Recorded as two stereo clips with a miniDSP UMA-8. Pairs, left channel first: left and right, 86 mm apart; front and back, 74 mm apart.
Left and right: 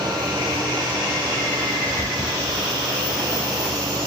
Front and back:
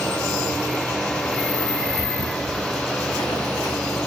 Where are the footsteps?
20° right, 4 m.